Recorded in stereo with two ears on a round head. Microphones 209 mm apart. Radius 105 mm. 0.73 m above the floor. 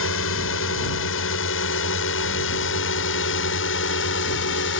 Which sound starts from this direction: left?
A drone, at 0.0 s.